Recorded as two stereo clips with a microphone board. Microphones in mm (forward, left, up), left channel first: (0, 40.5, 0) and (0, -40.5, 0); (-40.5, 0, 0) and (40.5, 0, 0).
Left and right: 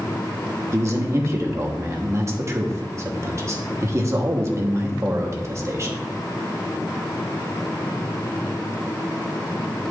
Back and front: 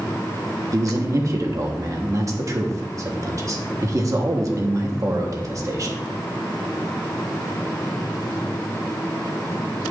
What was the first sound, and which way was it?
A man speaking, 40° right.